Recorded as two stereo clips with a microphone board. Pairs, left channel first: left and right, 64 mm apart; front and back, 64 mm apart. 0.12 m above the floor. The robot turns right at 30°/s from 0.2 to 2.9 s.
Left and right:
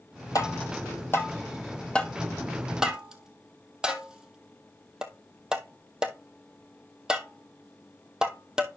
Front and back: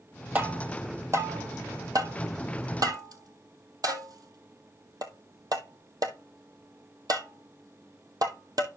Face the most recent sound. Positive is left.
turn(degrees=-170)